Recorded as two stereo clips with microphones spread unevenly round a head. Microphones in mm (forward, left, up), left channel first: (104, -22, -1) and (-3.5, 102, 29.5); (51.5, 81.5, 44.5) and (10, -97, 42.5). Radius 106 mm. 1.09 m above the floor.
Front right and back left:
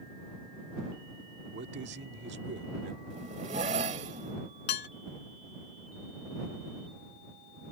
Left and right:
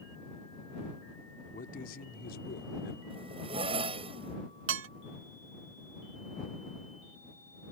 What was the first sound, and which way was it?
A man speaking, 130° left.